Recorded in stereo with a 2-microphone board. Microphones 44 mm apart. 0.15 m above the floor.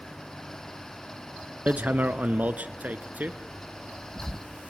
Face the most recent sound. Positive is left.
turn(degrees=-40)  # may be behind; listen again after turning